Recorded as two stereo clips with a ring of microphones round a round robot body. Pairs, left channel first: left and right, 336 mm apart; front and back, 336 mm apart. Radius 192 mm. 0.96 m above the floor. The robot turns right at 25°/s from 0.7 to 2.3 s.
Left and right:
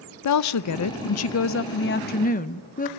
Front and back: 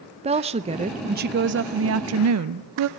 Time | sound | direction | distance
0.2 | a woman speaking | 110° left | 0.6 m